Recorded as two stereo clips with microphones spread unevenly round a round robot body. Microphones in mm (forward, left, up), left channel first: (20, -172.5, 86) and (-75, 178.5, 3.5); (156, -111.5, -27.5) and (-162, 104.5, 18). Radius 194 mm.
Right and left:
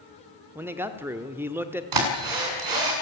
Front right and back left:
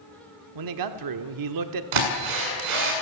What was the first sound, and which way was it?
A man speaking, straight behind.